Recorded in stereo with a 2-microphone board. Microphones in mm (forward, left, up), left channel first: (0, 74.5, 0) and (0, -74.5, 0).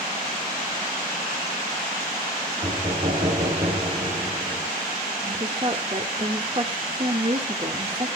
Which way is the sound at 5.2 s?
40° right (ahead or behind).